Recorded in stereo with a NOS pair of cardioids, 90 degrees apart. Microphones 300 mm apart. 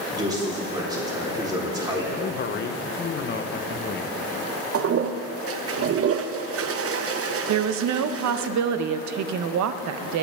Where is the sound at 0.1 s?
15° right, 3.5 m.